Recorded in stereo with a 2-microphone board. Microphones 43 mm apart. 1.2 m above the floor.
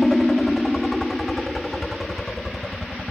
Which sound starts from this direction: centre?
A helicopter, at 0.0 s.